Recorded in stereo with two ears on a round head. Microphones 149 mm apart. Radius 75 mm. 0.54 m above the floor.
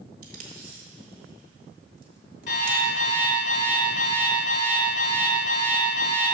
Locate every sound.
0.2 s tape being pulled: 55° right (ahead or behind), 1.6 m
2.5 s an alarm clock: 50° left (ahead or behind), 3 m